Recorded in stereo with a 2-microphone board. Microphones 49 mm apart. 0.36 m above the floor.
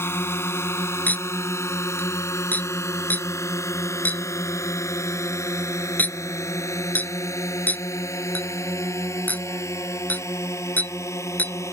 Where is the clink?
35° left (ahead or behind).